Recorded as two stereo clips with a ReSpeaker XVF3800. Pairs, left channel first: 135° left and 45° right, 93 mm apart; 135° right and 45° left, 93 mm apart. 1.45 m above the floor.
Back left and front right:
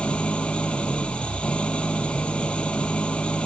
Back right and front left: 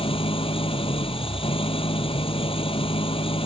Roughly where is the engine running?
Behind right.